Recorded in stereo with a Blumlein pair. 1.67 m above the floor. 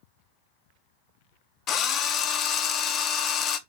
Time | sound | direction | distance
1.7 | a drill | 30° left | 0.6 m